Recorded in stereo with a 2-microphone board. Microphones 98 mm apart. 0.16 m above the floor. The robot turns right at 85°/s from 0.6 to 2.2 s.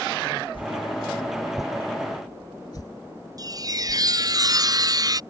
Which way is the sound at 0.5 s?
70° right (ahead or behind).